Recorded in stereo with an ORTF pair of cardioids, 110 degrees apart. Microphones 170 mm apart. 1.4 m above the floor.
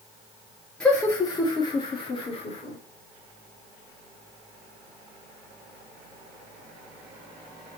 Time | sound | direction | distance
0.8 | laughter | 5° left | 0.8 m